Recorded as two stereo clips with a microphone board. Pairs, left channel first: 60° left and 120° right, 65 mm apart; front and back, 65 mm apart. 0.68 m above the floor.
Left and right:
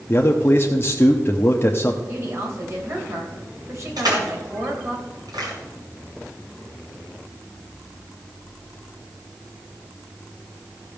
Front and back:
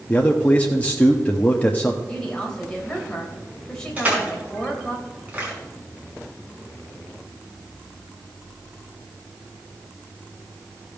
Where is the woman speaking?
80° right, 3 m.